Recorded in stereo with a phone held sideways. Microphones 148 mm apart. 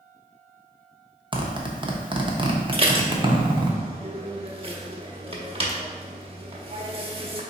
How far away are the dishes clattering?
About 0.8 m.